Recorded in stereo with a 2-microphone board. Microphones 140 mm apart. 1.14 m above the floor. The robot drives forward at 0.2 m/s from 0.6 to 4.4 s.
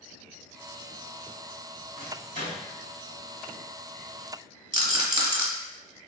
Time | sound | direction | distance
2.0 | a microwave | 75° left (ahead or behind) | 1.7 m
4.7 | a rattle | 30° right (ahead or behind) | 0.7 m